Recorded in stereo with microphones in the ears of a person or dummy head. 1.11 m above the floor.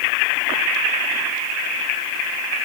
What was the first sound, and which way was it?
Only background noise.